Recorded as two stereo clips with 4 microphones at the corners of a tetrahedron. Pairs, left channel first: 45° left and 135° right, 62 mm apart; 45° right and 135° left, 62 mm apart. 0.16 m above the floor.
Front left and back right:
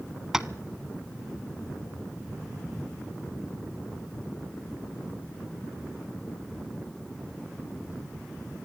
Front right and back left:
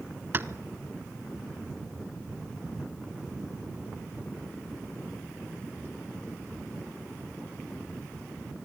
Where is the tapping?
150° left, 0.8 m.